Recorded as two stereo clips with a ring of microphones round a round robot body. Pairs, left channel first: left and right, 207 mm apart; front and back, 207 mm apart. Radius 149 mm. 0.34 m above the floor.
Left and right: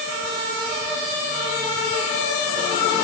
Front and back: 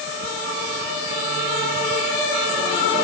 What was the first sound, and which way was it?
Only background noise.